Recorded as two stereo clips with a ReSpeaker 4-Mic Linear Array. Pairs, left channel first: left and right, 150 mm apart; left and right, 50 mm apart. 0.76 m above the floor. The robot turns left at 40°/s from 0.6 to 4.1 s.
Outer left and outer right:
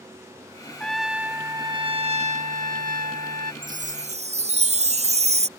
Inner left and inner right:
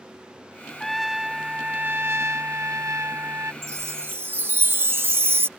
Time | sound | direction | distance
0.8 | a trumpet | 5° left | ?
3.6 | a chime | 70° right (ahead or behind) | ?